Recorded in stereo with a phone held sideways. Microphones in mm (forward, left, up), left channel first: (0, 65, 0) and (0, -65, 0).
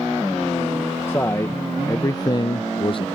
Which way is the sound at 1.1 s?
20° left (ahead or behind).